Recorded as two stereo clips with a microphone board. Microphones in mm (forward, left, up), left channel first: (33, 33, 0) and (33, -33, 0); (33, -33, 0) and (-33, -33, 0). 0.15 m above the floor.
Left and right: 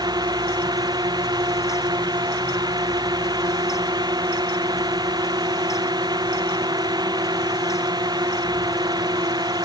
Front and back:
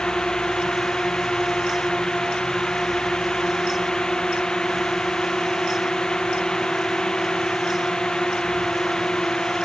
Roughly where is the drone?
Right.